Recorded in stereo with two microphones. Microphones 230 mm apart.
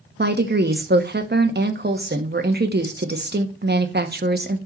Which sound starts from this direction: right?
A woman speaking, at 0.2 s.